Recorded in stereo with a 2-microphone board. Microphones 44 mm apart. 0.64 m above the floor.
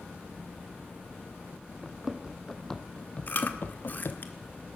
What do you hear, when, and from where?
1.8 s running footsteps: 10° right (ahead or behind), 2 m; by 4.2 s 70° left (ahead or behind), 1.5 m
3.3 s chewing: 45° left (ahead or behind), 1.8 m